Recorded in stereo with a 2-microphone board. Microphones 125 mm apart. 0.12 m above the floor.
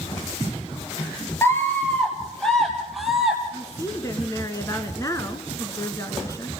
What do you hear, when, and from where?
1.4 s a scream: 20° left (ahead or behind), 1.9 m; by 3.4 s centre (ahead or behind), 3 m
3.5 s a woman speaking: 25° left (ahead or behind), 1.7 m